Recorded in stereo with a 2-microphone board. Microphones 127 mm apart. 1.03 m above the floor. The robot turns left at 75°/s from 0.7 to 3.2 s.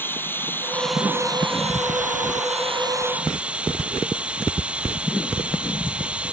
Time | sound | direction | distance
0.0 | running water | 15° left | ?